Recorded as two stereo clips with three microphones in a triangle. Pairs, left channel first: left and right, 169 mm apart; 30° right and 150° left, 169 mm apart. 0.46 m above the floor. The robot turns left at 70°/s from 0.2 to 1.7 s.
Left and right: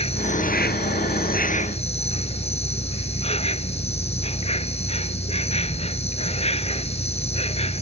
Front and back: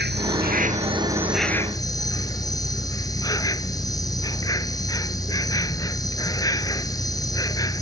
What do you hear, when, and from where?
0.0 s an insect: 145° left; by 7.8 s 40° left